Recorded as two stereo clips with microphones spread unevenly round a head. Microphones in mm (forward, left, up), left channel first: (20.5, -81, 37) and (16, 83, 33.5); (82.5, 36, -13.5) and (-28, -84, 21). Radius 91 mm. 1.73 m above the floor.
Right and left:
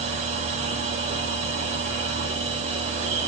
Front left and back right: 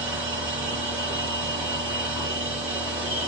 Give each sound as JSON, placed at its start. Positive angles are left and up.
{"t": 0.0, "sound": "a machine running", "azimuth_deg": 145, "distance_m": 1.1}